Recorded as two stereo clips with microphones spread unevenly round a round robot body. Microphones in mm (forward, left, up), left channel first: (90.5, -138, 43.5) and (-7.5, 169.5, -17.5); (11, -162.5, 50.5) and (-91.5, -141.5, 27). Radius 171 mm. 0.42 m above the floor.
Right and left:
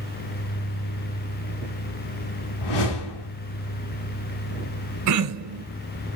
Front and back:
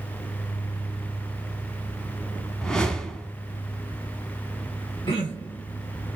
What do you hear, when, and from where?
2.6 s a whoosh: 95° right, 1.1 m
5.1 s throat clearing: 65° left, 1.0 m